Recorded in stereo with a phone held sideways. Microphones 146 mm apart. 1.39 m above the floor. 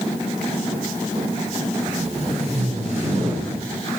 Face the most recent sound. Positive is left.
turn(degrees=-45)  # may be behind; listen again after turning